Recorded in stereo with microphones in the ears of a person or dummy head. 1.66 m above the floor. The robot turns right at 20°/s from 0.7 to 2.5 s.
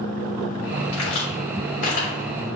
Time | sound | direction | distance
0.9 | a crack | 80° left | 5.5 m